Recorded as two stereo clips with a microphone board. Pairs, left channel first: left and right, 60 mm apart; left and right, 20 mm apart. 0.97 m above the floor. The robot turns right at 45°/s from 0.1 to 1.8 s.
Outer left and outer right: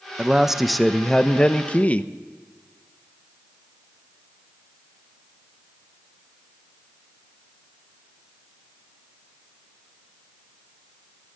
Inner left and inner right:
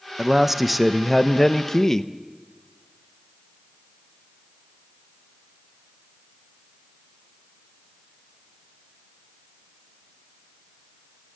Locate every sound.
0.2 s a man speaking: 20° right, 0.9 m; by 2.1 s 50° left, 0.9 m